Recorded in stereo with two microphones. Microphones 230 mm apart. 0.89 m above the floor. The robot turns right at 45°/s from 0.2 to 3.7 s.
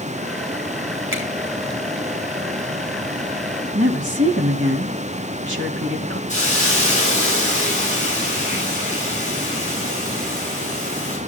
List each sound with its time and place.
1.1 s a finger snap: 65° right (ahead or behind), 6 m; by 1.2 s 70° right (ahead or behind), 6 m
3.8 s a woman speaking: 55° right (ahead or behind), 1.9 m
6.3 s a hiss: 30° left (ahead or behind), 9 m